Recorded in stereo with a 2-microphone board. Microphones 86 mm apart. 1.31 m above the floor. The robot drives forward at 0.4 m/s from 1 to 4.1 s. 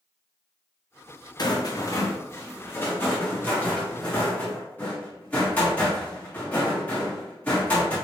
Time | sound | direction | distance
1.4 | a rattle | 55° left (ahead or behind) | 0.6 m